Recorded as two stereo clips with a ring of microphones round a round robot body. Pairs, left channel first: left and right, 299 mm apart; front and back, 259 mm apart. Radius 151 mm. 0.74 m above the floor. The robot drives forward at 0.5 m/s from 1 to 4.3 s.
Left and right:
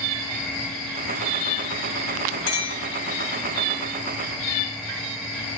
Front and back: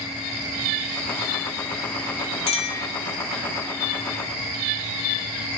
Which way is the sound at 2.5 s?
70° left.